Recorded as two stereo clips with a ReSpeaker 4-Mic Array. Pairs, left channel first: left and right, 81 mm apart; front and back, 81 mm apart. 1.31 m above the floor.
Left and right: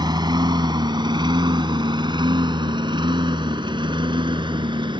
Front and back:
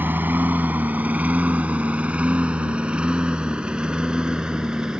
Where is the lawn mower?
115° right; by 5.0 s 100° right.